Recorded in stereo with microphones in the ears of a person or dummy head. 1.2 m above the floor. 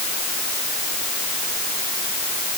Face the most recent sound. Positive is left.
No sound to turn to.